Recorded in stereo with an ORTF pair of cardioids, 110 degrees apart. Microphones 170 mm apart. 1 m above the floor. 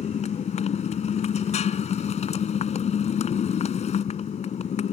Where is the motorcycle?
40° left.